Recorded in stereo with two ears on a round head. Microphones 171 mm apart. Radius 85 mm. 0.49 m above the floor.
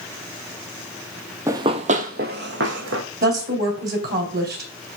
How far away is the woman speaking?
About 3 m.